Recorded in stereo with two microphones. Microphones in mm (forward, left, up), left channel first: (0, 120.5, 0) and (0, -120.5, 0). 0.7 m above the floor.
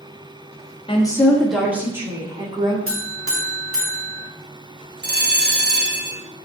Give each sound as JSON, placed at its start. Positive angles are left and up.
{"t": 0.9, "sound": "a woman speaking", "side_deg": 20, "distance_m": 1.4}
{"t": 2.9, "sound": "a buzzer", "side_deg": -65, "distance_m": 1.7}
{"t": 5.0, "sound": "a bell", "side_deg": -45, "distance_m": 1.0}